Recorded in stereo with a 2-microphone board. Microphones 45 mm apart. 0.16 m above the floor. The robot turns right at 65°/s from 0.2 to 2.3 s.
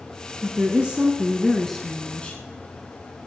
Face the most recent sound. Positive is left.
turn(degrees=50)